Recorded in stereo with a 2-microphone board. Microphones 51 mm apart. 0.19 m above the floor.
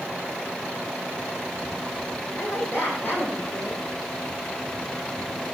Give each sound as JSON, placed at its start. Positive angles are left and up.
{"t": 2.4, "sound": "a woman speaking", "side_deg": 55, "distance_m": 7.5}